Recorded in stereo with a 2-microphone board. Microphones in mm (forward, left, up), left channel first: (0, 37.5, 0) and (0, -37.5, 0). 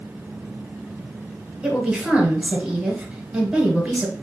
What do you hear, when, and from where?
1.6 s a woman speaking: 15° right (ahead or behind), 1.4 m